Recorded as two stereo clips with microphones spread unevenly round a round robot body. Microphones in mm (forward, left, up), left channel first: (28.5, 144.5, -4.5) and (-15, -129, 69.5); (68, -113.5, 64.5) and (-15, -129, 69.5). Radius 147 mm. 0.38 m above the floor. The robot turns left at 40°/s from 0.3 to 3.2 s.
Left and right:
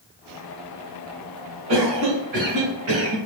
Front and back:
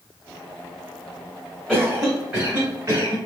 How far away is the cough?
About 2 m.